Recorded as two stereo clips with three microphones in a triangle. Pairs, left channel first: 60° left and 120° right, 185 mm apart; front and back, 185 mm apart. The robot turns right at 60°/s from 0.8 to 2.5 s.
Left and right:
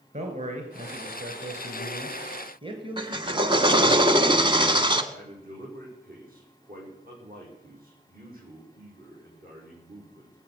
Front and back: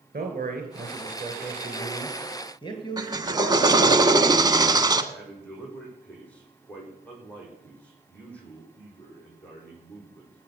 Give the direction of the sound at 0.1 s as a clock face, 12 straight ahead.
5 o'clock.